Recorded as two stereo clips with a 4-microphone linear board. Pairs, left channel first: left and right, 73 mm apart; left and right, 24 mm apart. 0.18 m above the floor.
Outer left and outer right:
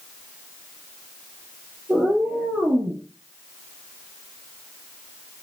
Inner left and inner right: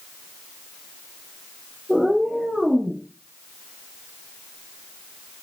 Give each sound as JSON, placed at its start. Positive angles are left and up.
{"t": 1.9, "sound": "a cat meowing", "side_deg": -15, "distance_m": 1.3}